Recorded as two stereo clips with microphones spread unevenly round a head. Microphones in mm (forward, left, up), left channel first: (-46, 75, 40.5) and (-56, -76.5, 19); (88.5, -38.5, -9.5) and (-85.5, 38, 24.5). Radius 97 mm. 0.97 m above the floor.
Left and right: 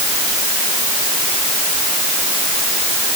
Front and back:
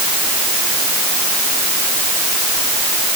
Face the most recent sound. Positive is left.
No sound to turn to.